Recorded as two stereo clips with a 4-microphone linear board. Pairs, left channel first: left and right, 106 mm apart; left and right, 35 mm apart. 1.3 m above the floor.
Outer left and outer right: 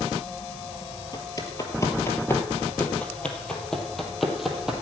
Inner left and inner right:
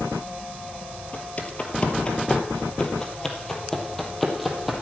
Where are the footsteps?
35° left (ahead or behind), 1.9 m; by 4.8 s 5° right (ahead or behind), 2.5 m.